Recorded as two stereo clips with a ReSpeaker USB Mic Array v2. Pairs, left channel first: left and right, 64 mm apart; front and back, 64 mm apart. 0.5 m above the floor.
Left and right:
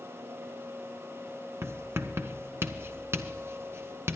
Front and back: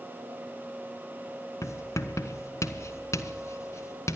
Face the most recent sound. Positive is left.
turn(degrees=-40)